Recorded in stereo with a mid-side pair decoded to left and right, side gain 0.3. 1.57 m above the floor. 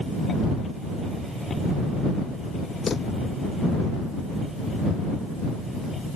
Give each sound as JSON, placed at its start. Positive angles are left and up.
{"t": 2.9, "sound": "a drawer", "azimuth_deg": 60}